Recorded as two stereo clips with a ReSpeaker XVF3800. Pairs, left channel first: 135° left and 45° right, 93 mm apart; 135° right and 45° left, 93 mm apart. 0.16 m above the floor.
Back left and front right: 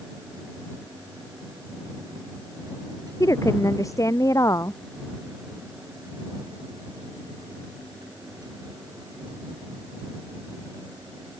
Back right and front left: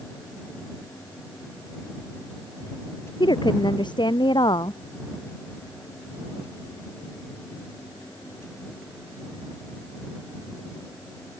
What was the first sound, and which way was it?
A woman speaking, 170° right.